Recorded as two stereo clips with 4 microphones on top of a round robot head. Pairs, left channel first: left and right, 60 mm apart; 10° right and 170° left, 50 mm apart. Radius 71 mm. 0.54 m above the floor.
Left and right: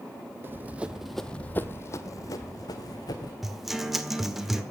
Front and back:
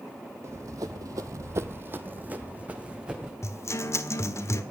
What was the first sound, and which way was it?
Running footsteps, 140° right.